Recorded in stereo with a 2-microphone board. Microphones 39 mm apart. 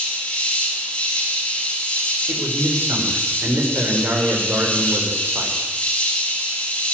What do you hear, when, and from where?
0.0 s an insect: 30° left (ahead or behind), 10 m
2.3 s a man speaking: 80° right, 6.5 m